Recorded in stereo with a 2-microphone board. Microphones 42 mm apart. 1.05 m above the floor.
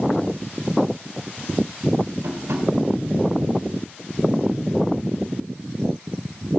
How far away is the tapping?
About 2.5 m.